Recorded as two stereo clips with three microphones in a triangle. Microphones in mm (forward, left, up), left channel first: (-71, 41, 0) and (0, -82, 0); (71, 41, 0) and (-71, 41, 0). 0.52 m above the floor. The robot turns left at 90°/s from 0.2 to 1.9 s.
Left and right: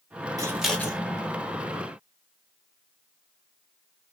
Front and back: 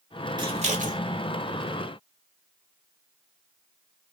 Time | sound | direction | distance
0.4 | scissors | 125° right | 0.9 m